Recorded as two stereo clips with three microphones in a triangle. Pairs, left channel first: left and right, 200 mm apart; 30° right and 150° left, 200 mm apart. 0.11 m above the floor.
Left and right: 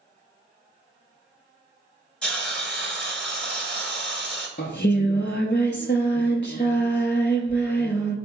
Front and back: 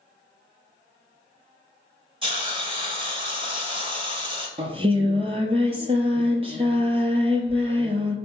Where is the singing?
95° left, 0.6 m.